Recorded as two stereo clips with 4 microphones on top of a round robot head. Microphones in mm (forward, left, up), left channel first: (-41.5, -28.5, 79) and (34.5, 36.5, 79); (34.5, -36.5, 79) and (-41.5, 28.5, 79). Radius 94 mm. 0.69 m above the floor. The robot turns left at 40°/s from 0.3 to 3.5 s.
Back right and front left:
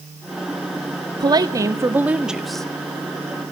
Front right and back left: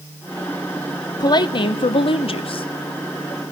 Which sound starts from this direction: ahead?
A woman speaking, at 1.2 s.